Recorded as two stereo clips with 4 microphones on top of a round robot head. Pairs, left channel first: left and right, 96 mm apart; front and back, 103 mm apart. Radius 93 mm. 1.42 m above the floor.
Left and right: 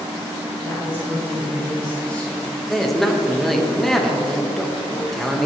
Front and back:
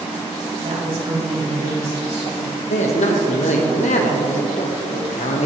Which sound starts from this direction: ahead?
A man speaking, at 2.7 s.